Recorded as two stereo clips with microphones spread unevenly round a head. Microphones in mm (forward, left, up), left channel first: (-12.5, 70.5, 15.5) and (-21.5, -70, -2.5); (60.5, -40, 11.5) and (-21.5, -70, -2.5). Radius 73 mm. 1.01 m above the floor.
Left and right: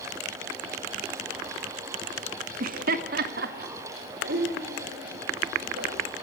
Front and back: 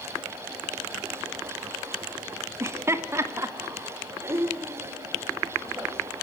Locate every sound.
2.6 s laughter: 105° right, 1.6 m; by 6.0 s 100° right, 6.5 m